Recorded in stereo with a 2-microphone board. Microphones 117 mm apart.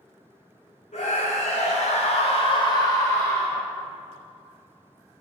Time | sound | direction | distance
0.9 | a scream | 85° left | 1.1 m